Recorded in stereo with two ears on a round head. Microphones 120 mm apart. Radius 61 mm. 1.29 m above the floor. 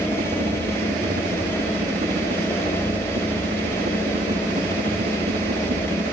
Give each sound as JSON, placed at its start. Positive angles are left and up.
{"t": 0.0, "sound": "a helicopter", "side_deg": -55}